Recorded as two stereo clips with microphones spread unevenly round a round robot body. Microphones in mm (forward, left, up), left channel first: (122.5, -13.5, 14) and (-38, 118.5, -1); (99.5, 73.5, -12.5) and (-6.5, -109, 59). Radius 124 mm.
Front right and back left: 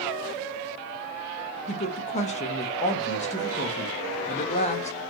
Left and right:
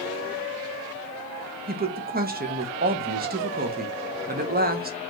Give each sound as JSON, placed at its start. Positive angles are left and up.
{"t": 1.7, "sound": "a woman speaking", "azimuth_deg": -75, "distance_m": 0.5}